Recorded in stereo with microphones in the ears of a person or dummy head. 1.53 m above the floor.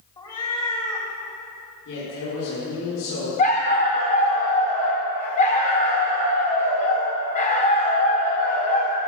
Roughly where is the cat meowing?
Centre.